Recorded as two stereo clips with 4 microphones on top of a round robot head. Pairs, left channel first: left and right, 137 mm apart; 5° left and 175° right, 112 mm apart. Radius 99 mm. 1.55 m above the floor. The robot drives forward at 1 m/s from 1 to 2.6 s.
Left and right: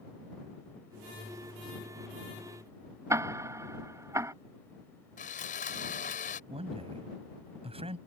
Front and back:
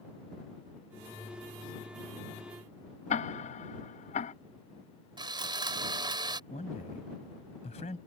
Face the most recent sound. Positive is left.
turn(degrees=-45)